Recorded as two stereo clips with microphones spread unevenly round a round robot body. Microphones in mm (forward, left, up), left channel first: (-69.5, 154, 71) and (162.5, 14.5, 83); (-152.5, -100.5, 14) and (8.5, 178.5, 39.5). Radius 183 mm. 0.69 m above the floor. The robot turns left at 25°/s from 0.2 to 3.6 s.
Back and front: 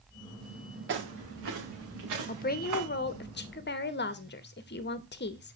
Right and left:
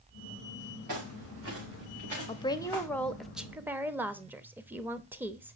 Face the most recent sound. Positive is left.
turn(degrees=145)